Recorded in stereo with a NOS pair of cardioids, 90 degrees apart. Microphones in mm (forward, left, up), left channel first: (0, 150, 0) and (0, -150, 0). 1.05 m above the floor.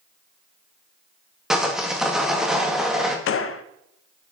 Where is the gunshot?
50° left, 0.5 m.